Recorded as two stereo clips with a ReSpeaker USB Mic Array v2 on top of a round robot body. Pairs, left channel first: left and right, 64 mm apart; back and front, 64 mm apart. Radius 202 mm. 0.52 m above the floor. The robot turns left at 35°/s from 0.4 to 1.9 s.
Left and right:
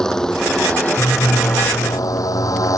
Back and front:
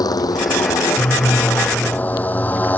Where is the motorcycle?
170° left; by 2.8 s 120° left.